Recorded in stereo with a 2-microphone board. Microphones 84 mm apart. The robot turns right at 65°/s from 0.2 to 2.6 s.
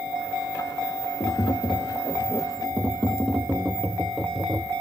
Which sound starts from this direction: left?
Tapping, at 1.2 s.